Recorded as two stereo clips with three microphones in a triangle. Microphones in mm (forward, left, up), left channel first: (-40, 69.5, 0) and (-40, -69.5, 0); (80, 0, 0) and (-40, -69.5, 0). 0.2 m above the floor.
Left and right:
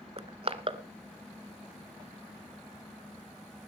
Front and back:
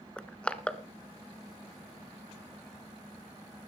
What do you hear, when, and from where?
0.2 s crushing: 50° right, 0.8 m